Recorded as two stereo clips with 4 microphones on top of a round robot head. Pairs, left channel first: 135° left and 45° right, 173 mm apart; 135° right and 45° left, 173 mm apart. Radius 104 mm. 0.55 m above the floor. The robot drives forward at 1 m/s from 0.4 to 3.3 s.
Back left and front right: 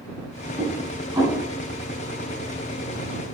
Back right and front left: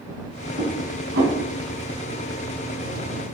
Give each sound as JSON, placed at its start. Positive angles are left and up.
{"t": 0.6, "sound": "dishes clattering", "azimuth_deg": 15, "distance_m": 3.5}